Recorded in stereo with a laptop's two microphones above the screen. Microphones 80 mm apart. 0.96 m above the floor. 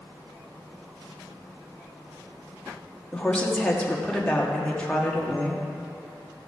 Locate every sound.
3.1 s a woman speaking: 15° left (ahead or behind), 1.5 m